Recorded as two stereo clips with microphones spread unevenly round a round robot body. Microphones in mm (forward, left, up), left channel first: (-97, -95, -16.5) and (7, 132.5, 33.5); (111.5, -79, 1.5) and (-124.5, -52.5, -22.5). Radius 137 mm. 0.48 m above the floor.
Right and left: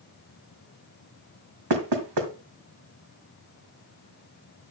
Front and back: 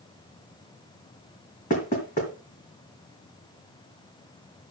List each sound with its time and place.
1.7 s knocking: 60° left, 2.0 m